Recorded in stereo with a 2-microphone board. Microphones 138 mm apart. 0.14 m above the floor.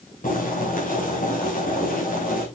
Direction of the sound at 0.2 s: 75° left (ahead or behind).